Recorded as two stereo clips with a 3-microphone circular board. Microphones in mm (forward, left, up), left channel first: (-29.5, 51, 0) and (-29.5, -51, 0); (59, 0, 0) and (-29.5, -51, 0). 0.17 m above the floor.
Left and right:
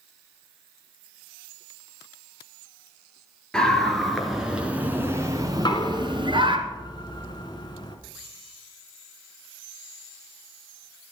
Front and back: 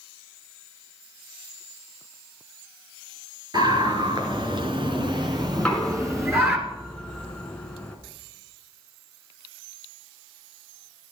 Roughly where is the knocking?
Left.